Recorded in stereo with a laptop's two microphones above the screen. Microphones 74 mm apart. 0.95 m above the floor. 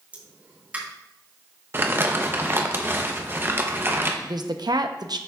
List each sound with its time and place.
0.1 s a pop: 20° right (ahead or behind), 1.2 m
1.7 s crumpling: 30° right (ahead or behind), 0.7 m
4.2 s a woman speaking: 65° right (ahead or behind), 0.7 m